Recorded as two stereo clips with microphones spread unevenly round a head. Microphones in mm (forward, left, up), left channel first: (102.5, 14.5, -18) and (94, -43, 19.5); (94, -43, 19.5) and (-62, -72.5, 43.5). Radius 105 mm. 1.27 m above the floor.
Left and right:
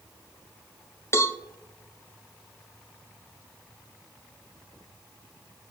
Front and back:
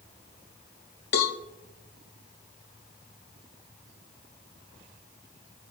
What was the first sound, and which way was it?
A cowbell, 35° left.